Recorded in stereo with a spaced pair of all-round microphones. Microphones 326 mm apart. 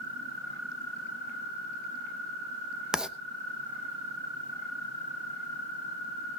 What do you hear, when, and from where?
2.9 s writing: centre (ahead or behind), 0.9 m